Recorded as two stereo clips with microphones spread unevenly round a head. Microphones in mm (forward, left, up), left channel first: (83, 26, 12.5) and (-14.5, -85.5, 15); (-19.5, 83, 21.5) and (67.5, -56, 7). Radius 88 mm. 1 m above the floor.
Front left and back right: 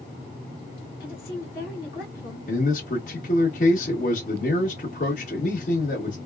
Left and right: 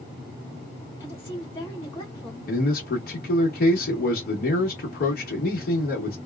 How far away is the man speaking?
About 1.2 m.